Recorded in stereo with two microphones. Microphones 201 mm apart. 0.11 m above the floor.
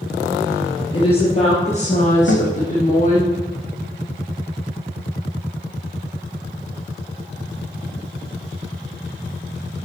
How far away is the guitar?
About 2.5 m.